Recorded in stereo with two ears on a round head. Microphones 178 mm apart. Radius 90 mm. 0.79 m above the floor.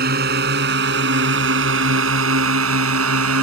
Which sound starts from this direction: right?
A drone, at 0.0 s.